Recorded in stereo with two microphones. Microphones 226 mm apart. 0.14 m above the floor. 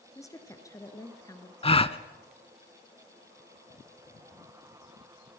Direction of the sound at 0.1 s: 15° left (ahead or behind).